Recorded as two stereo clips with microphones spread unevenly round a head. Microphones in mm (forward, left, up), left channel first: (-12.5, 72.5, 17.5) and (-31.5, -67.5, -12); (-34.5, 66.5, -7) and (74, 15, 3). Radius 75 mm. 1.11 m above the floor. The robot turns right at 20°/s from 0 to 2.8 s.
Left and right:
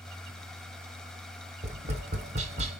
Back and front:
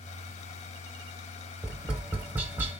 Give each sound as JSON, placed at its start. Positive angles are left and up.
{"t": 1.6, "sound": "tapping", "azimuth_deg": -100, "distance_m": 1.0}